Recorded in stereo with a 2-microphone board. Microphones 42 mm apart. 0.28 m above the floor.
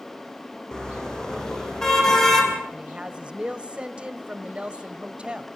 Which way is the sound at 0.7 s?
15° left (ahead or behind).